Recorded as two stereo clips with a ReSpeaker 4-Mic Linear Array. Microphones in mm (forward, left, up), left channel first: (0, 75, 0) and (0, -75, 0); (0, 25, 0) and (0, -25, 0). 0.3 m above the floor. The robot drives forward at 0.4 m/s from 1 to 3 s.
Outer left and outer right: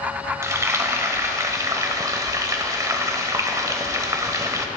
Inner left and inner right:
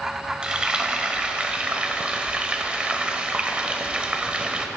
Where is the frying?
20° right (ahead or behind), 1.1 m.